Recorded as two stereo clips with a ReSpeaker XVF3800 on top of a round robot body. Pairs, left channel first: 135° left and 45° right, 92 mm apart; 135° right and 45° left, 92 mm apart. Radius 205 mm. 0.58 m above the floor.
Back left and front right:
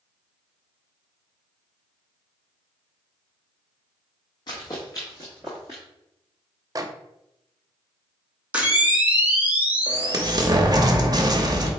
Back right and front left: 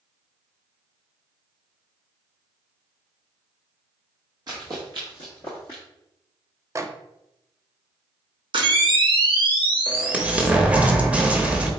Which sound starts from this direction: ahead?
A microwave, at 6.8 s.